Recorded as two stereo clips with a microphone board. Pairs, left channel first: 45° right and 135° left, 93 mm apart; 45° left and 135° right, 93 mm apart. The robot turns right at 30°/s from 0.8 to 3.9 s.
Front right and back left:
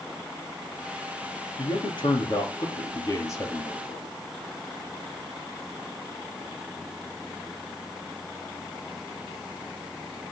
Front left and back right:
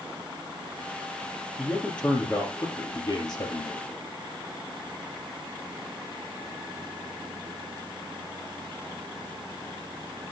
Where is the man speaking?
45° right, 3 m; by 3.9 s 25° left, 3 m.